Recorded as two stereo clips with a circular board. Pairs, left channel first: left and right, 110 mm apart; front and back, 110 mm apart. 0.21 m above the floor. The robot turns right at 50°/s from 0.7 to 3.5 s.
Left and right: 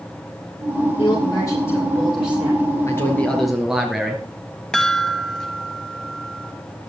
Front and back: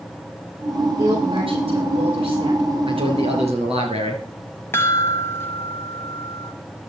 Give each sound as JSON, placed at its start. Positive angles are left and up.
{"t": 1.0, "sound": "a woman speaking", "azimuth_deg": 125, "distance_m": 7.5}
{"t": 2.9, "sound": "a man speaking", "azimuth_deg": 150, "distance_m": 3.5}
{"t": 4.7, "sound": "a chime", "azimuth_deg": 20, "distance_m": 1.3}